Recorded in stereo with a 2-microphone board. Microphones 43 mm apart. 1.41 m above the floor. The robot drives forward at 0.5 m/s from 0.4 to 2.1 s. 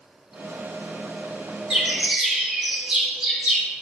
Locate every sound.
1.7 s a bird: 25° right (ahead or behind), 2 m